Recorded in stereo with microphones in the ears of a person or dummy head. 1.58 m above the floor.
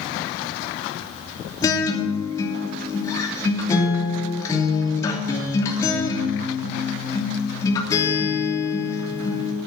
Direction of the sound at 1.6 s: 20° left (ahead or behind).